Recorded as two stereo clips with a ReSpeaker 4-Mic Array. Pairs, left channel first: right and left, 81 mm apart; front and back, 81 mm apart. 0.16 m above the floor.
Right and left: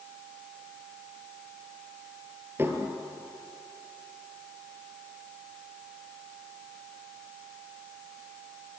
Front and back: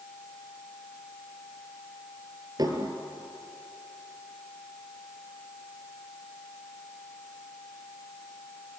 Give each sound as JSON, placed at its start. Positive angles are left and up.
{"t": 2.6, "sound": "dishes clattering", "azimuth_deg": 150, "distance_m": 2.5}